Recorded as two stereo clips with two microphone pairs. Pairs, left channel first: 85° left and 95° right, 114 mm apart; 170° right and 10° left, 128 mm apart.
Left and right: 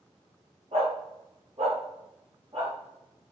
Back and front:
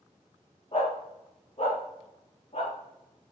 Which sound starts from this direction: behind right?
A dog barking, at 0.7 s.